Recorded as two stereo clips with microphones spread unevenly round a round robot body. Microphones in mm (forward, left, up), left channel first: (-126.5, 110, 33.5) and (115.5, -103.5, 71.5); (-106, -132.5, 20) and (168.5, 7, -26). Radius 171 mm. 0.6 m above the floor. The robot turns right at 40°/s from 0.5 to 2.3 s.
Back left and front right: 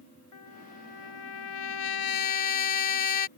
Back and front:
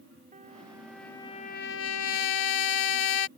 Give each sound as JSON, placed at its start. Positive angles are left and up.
{"t": 0.3, "sound": "a trumpet", "azimuth_deg": 100}